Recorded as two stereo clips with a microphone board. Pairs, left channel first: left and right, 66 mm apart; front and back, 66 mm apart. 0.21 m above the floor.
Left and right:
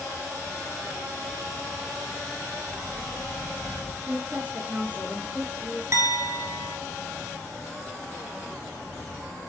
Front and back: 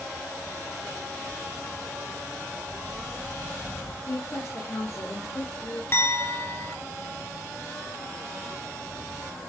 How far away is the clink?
About 2.5 m.